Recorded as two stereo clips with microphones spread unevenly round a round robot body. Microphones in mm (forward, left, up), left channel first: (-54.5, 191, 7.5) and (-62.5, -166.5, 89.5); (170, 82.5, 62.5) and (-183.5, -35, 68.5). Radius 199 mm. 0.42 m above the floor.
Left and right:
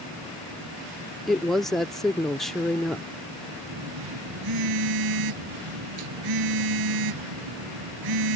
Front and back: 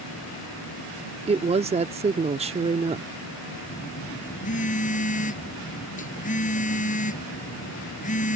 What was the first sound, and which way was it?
A woman speaking, 145° left.